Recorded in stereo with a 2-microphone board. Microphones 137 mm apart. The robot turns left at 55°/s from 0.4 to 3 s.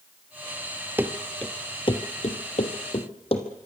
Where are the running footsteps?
15° right (ahead or behind), 1.4 m; by 3.5 s 45° left (ahead or behind), 3 m.